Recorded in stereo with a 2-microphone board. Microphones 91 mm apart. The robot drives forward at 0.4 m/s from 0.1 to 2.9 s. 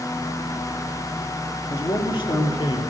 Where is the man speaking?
65° left (ahead or behind), 3.5 m; by 2.8 s 60° left (ahead or behind), 3.5 m.